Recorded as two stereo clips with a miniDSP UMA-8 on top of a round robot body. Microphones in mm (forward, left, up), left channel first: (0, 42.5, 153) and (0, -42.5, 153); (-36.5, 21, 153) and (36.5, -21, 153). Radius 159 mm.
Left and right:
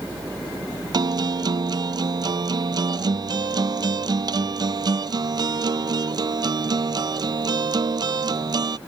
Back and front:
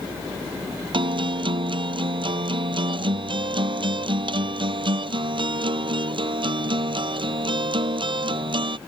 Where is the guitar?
50° right.